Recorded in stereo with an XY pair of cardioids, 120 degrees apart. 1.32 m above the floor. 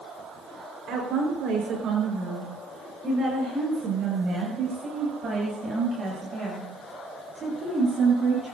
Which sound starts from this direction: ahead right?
A woman speaking, at 0.9 s.